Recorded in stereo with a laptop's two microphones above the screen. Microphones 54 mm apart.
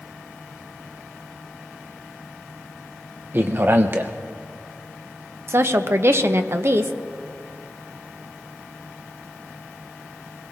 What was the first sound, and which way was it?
A man speaking, 40° right (ahead or behind).